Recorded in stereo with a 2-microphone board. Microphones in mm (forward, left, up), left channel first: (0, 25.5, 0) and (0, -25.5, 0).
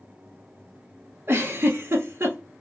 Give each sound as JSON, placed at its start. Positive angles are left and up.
{"t": 1.3, "sound": "a giggle", "side_deg": -50, "distance_m": 0.9}